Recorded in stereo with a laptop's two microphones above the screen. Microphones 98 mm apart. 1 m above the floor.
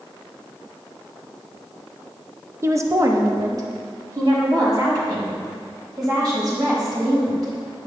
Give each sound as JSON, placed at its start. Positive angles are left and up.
{"t": 2.6, "sound": "a woman speaking", "side_deg": -25, "distance_m": 0.7}